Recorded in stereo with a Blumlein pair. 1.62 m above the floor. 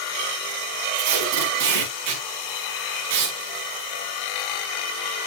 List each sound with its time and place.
0.9 s tape being pulled: 45° right, 4.5 m